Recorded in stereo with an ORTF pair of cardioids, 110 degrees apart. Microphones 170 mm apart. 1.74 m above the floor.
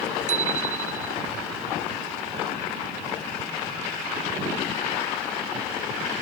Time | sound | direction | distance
0.3 | a bicycle bell | 45° right | ?